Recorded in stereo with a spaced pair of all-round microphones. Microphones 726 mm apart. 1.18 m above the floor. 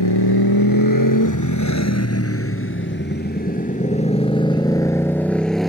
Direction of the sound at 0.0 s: 30° left (ahead or behind).